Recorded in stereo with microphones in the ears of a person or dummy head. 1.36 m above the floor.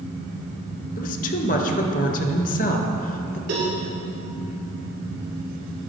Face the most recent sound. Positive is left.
turn(degrees=-60)  # may be behind; listen again after turning